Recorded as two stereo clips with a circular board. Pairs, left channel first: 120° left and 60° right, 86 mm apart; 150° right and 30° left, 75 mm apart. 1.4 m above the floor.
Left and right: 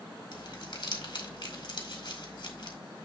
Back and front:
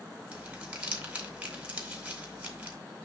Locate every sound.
0.3 s crumpling: 105° left, 2 m